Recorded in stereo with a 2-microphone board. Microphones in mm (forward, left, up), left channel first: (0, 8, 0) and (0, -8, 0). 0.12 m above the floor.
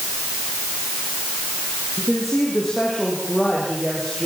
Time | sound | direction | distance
2.0 | a woman speaking | 15° left (ahead or behind) | 8.5 m